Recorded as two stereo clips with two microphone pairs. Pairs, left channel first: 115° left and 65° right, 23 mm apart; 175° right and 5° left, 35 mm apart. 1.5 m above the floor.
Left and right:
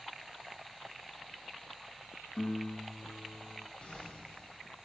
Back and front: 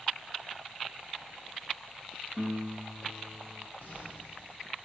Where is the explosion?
155° left, 9 m.